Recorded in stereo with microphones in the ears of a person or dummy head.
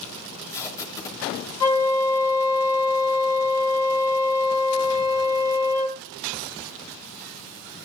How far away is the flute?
About 2.5 m.